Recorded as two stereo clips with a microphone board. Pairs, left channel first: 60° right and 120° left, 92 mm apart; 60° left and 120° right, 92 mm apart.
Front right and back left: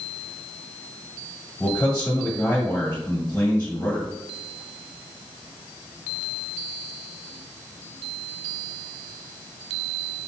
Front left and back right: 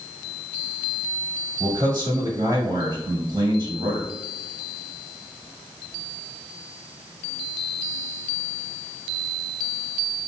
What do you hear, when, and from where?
1.6 s a man speaking: 115° right, 1.0 m